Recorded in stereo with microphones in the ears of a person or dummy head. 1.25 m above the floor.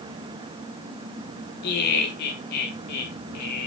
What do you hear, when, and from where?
1.6 s laughter: 55° left (ahead or behind), 0.9 m; by 3.7 s 60° left (ahead or behind), 1.9 m